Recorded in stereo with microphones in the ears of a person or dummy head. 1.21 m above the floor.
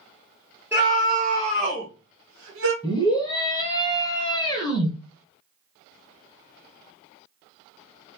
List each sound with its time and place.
0.7 s a scream: 5° right (ahead or behind), 0.9 m; by 2.7 s 65° right (ahead or behind), 1.0 m
2.8 s a scream: 15° left (ahead or behind), 0.7 m